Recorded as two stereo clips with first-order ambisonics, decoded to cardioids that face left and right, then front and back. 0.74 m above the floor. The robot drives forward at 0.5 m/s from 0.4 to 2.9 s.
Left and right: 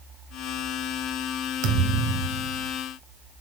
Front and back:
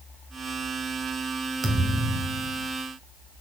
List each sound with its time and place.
1.6 s a thud: 105° right, 1.4 m; by 2.7 s 125° right, 1.6 m